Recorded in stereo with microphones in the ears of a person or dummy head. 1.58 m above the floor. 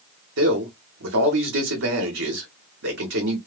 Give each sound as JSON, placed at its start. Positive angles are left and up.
{"t": 0.4, "sound": "a man speaking", "side_deg": -60, "distance_m": 1.2}